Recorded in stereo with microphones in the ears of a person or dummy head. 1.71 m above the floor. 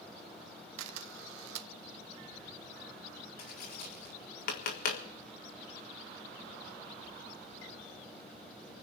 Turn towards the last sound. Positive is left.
turn(degrees=50)  # may be behind; listen again after turning